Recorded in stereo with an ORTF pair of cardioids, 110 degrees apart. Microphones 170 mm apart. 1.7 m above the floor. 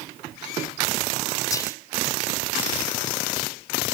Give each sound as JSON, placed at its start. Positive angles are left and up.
{"t": 1.5, "sound": "whispering", "azimuth_deg": 20, "distance_m": 0.8}